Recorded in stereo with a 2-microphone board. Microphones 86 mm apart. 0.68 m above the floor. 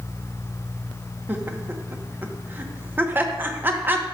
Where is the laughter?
25° right (ahead or behind), 0.8 m.